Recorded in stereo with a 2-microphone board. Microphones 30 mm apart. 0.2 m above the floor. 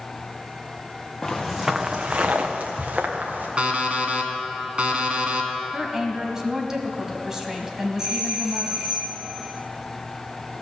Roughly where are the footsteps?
Centre.